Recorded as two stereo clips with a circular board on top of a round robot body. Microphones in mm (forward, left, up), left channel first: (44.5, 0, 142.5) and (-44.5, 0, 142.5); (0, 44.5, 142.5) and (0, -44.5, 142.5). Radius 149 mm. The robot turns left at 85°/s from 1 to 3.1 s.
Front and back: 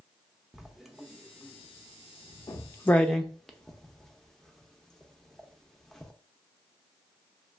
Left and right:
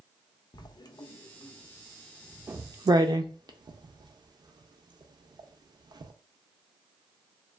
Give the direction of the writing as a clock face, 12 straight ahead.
9 o'clock.